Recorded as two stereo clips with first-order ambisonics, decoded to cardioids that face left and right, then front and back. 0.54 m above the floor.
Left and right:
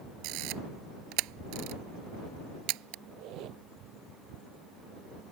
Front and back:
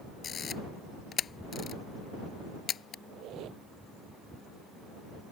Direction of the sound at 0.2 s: 65° right.